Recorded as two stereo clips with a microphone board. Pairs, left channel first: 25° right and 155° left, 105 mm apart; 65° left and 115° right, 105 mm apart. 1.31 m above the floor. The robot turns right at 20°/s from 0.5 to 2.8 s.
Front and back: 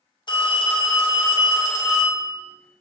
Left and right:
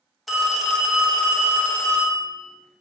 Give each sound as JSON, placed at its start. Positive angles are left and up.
{"t": 0.3, "sound": "a phone ringing", "azimuth_deg": -20, "distance_m": 0.5}